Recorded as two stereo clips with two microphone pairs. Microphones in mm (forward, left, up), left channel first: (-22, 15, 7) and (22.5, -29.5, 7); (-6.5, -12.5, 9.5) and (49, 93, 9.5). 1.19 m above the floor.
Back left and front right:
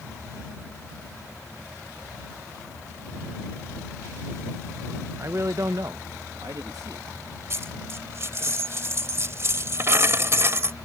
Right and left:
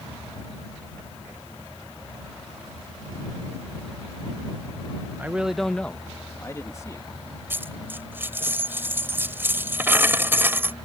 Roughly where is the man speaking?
Ahead.